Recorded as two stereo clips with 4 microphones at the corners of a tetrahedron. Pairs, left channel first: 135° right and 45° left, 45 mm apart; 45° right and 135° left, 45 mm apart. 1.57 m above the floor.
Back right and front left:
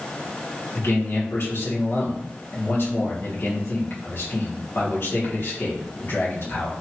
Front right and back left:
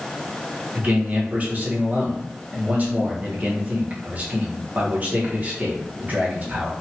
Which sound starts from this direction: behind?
A man speaking, at 0.8 s.